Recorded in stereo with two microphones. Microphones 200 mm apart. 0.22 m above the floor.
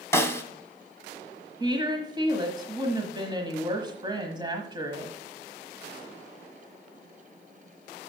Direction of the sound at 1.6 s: 25° right (ahead or behind).